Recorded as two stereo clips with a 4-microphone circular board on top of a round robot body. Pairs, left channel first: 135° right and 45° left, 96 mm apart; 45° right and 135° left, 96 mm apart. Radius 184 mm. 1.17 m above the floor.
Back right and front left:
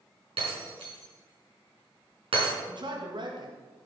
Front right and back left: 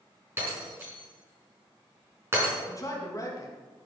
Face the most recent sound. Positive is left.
turn(degrees=10)